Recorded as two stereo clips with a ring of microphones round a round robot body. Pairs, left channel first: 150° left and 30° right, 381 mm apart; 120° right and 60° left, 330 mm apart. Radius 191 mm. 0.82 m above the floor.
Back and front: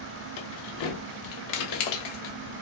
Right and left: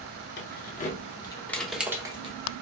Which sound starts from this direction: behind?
Keys jangling, at 0.4 s.